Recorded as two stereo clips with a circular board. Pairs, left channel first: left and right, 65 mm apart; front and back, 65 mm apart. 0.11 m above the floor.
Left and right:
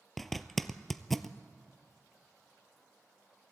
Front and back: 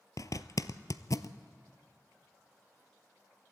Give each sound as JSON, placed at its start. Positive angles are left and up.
{"t": 0.2, "sound": "a zipper", "azimuth_deg": 5, "distance_m": 0.7}